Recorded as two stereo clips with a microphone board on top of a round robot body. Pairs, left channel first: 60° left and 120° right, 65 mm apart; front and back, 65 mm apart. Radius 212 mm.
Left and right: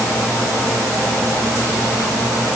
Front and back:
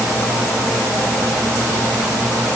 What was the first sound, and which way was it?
Only background noise.